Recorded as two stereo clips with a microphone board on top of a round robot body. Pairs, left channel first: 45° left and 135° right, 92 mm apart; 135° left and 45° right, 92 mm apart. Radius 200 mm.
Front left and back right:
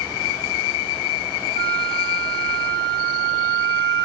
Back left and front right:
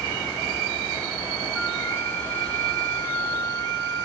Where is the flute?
135° right, 3.5 m.